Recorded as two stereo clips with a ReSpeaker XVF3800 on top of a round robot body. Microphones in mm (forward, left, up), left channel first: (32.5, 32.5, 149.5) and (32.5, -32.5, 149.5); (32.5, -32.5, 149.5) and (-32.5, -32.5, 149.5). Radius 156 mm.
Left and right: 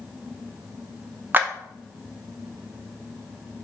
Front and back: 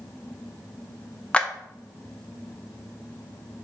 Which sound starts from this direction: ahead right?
A clap, at 1.3 s.